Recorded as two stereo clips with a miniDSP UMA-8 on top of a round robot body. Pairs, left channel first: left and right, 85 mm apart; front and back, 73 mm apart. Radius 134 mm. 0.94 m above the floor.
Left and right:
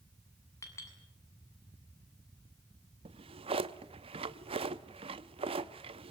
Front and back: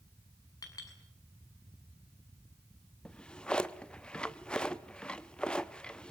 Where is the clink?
35° left, 7 m.